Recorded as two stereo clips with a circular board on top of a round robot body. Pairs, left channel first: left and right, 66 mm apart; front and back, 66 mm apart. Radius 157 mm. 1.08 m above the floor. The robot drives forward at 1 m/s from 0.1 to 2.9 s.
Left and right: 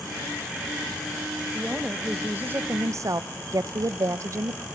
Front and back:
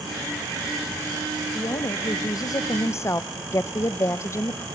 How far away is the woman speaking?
About 1.9 m.